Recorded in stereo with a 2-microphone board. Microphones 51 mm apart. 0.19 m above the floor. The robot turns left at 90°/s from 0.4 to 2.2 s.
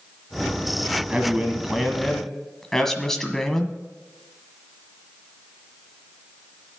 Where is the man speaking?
20° right (ahead or behind), 1.5 m; by 3.8 s 5° left (ahead or behind), 1.5 m.